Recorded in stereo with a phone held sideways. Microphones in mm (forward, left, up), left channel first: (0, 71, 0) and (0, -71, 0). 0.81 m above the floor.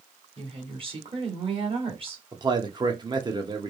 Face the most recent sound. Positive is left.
turn(degrees=-35)  # may be behind; listen again after turning